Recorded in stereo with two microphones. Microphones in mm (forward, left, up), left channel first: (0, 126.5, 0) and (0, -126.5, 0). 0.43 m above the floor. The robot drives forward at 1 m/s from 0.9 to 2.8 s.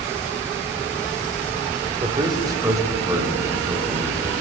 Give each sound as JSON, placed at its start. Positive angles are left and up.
{"t": 2.0, "sound": "a man speaking", "side_deg": -20, "distance_m": 1.1}